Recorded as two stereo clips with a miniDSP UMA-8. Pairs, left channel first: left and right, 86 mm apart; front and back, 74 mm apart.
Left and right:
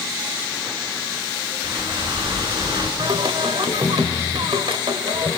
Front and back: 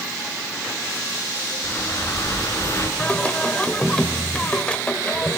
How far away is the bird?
About 4 m.